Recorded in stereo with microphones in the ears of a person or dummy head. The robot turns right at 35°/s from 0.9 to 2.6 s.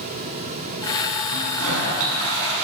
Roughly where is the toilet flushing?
Right.